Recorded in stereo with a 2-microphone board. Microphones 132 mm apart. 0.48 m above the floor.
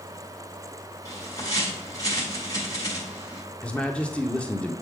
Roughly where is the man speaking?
Centre.